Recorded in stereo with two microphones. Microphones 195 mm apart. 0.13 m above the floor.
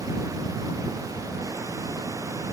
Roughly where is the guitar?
No guitar in this recording.